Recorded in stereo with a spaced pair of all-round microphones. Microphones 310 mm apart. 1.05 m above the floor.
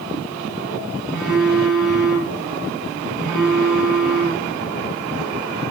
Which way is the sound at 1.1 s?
Centre (ahead or behind).